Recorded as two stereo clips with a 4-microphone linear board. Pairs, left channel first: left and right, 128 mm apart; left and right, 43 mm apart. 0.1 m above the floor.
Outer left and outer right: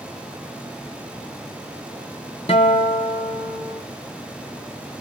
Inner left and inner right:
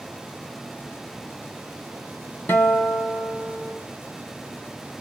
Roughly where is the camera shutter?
No camera shutter in this recording.